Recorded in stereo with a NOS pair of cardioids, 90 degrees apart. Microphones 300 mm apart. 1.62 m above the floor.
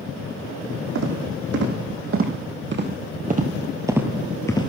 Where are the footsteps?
60° right, 5.5 m; by 4.7 s 25° left, 2.5 m.